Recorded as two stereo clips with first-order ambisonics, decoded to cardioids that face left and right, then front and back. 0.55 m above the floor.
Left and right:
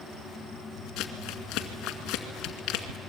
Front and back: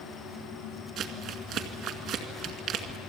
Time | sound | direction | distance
1.0 | crumpling | 130° left | 2 m